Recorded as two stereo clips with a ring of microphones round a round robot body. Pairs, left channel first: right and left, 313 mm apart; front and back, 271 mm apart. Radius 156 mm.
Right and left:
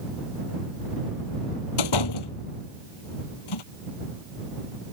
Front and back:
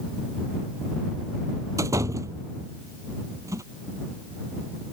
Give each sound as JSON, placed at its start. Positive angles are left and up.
{"t": 1.8, "sound": "a door slam", "azimuth_deg": -100}